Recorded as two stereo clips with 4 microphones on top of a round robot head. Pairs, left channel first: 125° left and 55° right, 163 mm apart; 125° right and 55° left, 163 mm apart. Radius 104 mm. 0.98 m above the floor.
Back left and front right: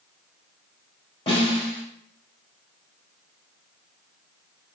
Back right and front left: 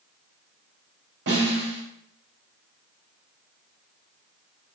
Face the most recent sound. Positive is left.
turn(degrees=65)